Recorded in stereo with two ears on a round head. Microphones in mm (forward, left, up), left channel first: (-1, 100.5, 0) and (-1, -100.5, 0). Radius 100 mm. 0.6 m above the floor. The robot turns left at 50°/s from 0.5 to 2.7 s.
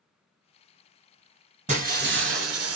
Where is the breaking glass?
35° right, 1.1 m; by 2.8 s 85° right, 1.1 m.